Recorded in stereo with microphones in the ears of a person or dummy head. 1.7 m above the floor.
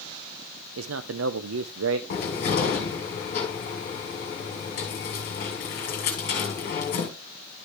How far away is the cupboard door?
About 1.9 m.